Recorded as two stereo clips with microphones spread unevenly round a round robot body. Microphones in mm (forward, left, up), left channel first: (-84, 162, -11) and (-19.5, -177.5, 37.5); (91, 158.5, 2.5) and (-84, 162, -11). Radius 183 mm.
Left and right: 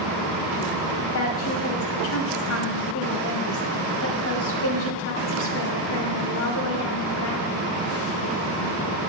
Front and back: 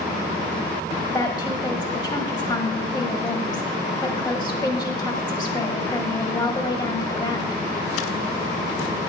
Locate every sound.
1.1 s a woman speaking: 65° left, 2 m